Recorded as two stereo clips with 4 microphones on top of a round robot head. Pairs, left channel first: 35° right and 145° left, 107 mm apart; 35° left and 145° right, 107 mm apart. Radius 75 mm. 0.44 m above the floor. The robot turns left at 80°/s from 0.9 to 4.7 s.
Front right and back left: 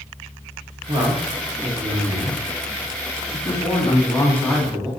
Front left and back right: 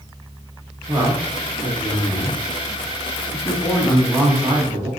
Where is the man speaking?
175° left, 1.1 m; by 4.9 s 130° right, 1.1 m.